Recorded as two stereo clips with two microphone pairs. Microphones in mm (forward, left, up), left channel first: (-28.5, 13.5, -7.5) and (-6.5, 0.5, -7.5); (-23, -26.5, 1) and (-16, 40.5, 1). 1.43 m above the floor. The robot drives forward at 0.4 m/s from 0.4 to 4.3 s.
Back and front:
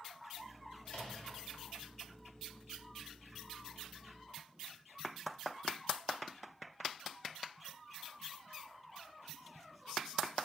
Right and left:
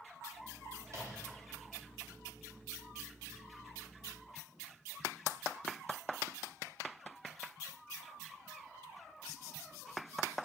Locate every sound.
0.8 s a microwave: 120° left, 2 m; by 1.4 s 125° left, 2 m